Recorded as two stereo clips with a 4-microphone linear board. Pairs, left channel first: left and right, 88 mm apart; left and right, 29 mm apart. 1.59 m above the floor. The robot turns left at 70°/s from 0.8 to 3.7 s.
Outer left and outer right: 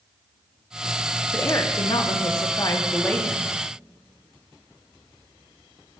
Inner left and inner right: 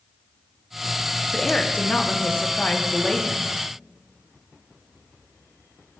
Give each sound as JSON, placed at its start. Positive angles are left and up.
{"t": 1.3, "sound": "a woman speaking", "azimuth_deg": 145, "distance_m": 0.7}